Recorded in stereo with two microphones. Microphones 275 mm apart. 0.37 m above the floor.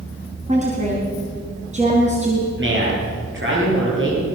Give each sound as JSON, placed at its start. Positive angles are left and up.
{"t": 0.5, "sound": "a woman speaking", "side_deg": -25, "distance_m": 3.5}
{"t": 2.6, "sound": "a man speaking", "side_deg": -45, "distance_m": 9.0}